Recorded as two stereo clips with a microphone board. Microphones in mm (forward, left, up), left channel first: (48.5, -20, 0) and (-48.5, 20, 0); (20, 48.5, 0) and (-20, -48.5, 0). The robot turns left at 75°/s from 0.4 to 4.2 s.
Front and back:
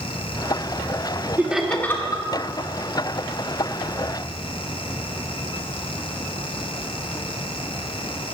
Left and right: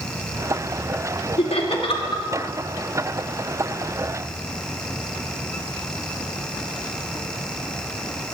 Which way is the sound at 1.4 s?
85° left.